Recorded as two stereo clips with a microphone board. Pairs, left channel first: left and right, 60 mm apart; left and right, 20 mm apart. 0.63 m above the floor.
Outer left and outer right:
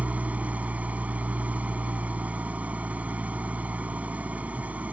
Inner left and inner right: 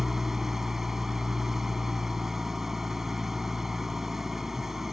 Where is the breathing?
No breathing in this recording.